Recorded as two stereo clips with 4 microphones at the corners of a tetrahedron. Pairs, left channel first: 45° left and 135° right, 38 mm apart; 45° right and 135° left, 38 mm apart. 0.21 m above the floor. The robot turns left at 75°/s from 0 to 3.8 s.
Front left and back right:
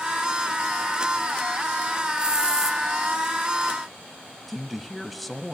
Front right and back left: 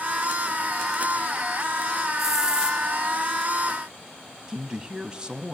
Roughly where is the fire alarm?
No fire alarm in this recording.